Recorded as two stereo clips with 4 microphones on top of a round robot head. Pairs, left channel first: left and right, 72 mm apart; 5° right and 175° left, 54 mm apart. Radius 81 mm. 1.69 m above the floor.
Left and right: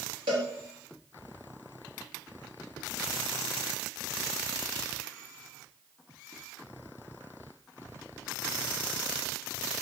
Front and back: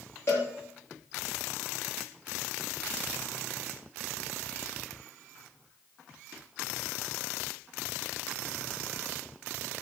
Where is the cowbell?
65° right, 6.5 m.